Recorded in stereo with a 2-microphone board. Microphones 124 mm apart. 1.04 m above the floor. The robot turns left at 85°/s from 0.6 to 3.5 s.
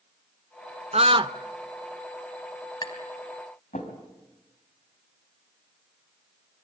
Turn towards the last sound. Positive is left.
turn(degrees=85)